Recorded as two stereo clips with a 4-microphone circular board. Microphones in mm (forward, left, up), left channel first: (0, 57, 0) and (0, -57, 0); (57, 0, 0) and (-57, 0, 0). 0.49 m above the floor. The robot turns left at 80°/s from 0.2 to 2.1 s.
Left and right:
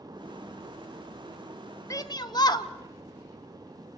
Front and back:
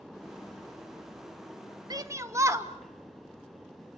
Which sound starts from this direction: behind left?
A shout, at 1.9 s.